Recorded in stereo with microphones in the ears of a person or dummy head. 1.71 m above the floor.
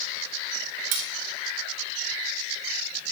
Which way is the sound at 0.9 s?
40° right (ahead or behind).